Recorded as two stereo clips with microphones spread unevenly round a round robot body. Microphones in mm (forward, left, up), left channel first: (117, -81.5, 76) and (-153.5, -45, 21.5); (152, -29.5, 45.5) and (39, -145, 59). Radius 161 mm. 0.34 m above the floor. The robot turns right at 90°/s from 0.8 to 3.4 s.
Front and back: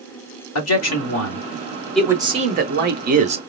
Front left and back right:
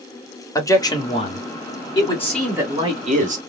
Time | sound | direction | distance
0.6 | a man speaking | 10° right | 1.4 m